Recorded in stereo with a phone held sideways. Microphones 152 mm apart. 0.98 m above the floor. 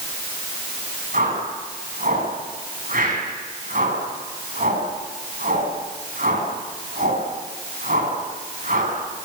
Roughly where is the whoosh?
Right.